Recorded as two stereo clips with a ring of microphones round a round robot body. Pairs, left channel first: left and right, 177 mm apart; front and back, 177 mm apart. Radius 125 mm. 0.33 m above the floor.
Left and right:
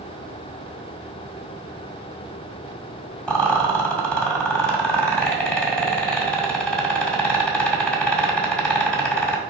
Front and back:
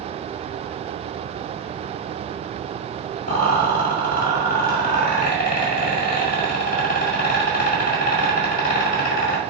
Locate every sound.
3.3 s a rattle: 5° left, 1.6 m